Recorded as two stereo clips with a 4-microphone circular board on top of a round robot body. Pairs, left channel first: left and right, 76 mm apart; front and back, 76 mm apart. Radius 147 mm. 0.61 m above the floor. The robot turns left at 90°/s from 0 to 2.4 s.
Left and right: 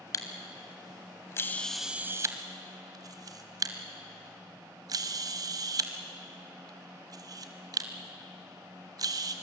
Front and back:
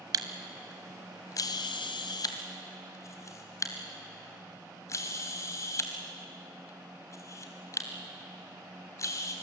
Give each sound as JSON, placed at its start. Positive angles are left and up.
{"t": 0.1, "sound": "a camera shutter", "azimuth_deg": 145, "distance_m": 0.7}